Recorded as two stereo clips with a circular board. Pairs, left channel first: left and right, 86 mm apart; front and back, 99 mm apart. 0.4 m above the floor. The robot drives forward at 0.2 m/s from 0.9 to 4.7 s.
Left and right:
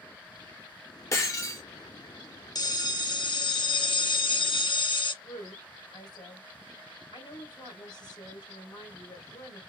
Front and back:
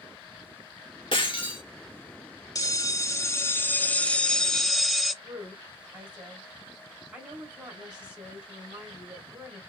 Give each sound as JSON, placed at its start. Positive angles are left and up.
{"t": 1.1, "sound": "breaking glass", "azimuth_deg": 35, "distance_m": 1.8}
{"t": 2.5, "sound": "a bell", "azimuth_deg": 50, "distance_m": 0.7}
{"t": 5.2, "sound": "a woman speaking", "azimuth_deg": 100, "distance_m": 2.5}